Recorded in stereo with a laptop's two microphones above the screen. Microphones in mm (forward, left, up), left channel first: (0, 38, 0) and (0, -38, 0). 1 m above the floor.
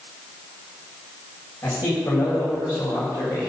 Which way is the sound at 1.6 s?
55° left (ahead or behind).